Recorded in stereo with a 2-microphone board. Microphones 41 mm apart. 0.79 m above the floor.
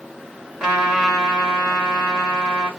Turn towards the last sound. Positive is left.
turn(degrees=-15)  # may be behind; listen again after turning